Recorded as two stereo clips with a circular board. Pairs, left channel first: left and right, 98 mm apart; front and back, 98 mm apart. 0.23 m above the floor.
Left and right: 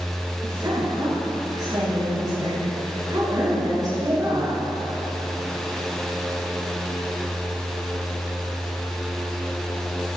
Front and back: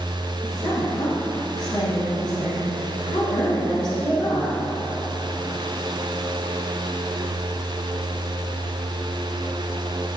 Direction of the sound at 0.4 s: 40° right.